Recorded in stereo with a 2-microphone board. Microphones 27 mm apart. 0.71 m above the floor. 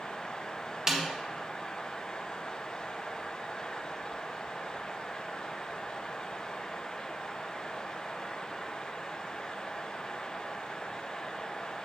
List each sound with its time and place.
0.9 s a snare drum: 20° right (ahead or behind), 1.5 m